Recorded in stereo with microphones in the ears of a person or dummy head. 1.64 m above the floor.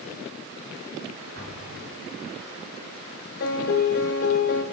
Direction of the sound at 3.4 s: 50° left (ahead or behind).